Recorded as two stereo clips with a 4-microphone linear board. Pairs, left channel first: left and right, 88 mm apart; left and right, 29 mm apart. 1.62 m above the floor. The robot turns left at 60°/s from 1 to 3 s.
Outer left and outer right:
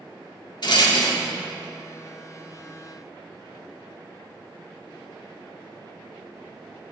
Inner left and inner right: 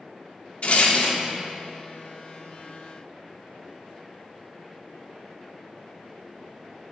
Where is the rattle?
60° left (ahead or behind), 1.2 m; by 1.2 s 55° left (ahead or behind), 1.2 m.